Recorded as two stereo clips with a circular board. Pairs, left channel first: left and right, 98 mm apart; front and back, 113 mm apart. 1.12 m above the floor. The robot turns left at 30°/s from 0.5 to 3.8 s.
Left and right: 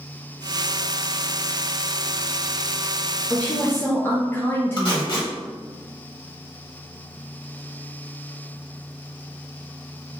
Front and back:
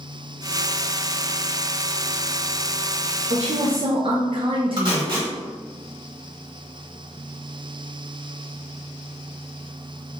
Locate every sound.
3.3 s a woman speaking: 170° left, 0.5 m; by 5.2 s 155° left, 0.5 m
4.8 s tape being pulled: 130° left, 1.4 m